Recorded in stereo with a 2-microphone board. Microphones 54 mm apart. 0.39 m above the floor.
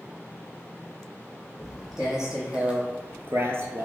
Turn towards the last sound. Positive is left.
turn(degrees=-45)  # may be behind; listen again after turning